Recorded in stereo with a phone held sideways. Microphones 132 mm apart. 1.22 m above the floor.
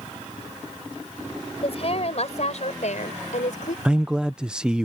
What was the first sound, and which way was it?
A woman speaking, 45° left (ahead or behind).